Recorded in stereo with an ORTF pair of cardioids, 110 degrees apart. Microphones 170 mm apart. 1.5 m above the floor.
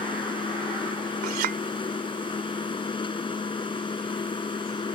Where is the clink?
65° right.